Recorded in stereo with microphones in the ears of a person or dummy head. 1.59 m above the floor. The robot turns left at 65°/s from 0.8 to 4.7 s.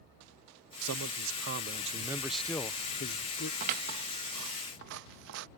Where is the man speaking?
80° right; by 3.5 s 105° left.